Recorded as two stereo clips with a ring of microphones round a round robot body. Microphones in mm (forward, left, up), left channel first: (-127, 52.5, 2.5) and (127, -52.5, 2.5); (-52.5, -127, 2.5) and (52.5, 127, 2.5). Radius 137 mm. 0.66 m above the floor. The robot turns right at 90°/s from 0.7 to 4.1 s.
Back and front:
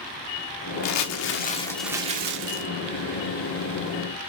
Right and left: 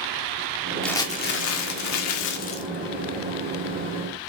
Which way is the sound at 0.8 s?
160° left.